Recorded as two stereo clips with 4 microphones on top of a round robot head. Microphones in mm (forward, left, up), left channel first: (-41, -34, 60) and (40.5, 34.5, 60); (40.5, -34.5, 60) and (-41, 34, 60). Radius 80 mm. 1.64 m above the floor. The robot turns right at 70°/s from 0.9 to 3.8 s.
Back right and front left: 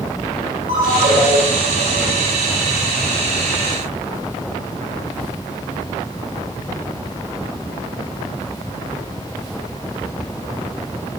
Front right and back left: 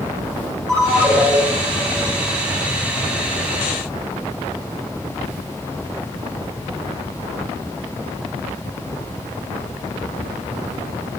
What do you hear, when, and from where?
0.7 s a ringtone: 45° left, 3.5 m; by 1.4 s 80° left, 3.5 m